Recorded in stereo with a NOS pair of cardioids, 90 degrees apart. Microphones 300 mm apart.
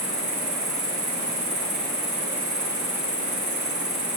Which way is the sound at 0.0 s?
25° right.